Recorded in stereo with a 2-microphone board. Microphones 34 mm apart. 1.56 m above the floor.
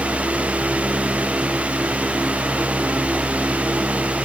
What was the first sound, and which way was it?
Only background noise.